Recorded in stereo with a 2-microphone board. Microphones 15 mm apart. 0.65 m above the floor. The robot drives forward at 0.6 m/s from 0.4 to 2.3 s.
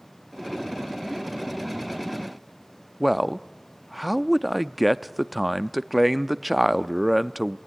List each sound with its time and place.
3.0 s a man speaking: 5° right (ahead or behind), 0.6 m